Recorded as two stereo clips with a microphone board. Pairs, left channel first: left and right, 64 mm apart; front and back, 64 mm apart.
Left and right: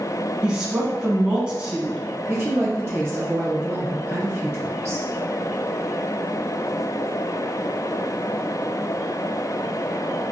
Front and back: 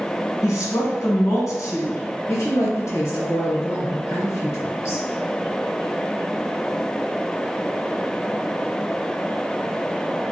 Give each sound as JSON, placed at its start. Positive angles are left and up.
{"t": 0.4, "sound": "a woman speaking", "azimuth_deg": -20, "distance_m": 1.0}
{"t": 2.3, "sound": "a woman speaking", "azimuth_deg": -45, "distance_m": 1.1}